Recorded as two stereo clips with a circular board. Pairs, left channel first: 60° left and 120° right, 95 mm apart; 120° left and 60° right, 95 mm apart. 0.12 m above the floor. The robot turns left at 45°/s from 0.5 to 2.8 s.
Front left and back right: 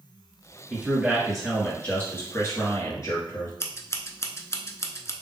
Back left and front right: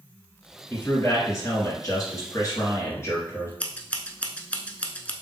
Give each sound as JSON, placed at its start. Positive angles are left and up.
{"t": 0.7, "sound": "a man speaking", "azimuth_deg": 180, "distance_m": 2.0}
{"t": 3.6, "sound": "scissors", "azimuth_deg": 60, "distance_m": 0.6}